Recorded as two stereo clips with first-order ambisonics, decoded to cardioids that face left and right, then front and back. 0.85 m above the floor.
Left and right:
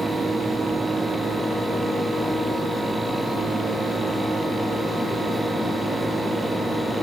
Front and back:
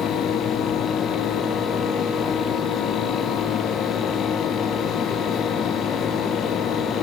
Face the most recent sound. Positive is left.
No sound to turn to.